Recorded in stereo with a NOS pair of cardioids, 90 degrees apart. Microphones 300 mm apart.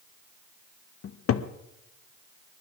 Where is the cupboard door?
55° left, 0.9 m.